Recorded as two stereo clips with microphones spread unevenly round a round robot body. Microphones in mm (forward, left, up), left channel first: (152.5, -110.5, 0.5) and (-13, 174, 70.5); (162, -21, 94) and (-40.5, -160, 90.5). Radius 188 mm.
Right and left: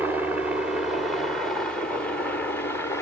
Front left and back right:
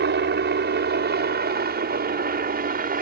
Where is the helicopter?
145° right; by 3.0 s 120° right.